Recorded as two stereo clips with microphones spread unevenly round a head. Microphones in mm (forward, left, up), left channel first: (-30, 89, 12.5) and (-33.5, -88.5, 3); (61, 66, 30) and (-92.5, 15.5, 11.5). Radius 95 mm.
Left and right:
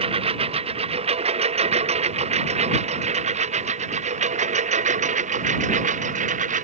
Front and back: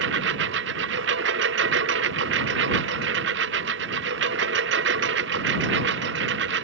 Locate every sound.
0.0 s a lawn mower: 150° right; by 6.6 s 135° right